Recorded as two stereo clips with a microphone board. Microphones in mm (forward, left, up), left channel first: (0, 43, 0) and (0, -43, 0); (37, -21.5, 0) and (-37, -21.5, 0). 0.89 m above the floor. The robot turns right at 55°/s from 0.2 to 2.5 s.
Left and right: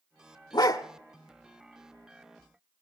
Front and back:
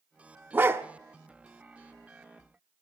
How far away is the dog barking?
About 1.0 m.